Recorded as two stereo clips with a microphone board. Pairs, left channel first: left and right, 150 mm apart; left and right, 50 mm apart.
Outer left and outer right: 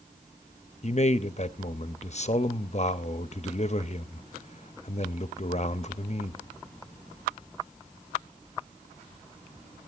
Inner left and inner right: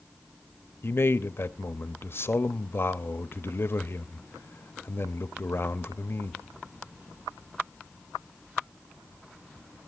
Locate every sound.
0.8 s a man speaking: 50° left (ahead or behind), 0.7 m